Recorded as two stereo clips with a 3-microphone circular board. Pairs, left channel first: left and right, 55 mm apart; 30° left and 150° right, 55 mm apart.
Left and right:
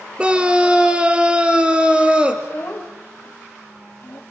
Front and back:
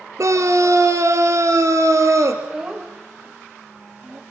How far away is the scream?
About 2.5 m.